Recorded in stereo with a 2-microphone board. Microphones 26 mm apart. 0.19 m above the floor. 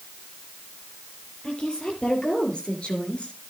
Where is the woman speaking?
35° left (ahead or behind), 5 m; by 3.4 s 45° left (ahead or behind), 2.5 m.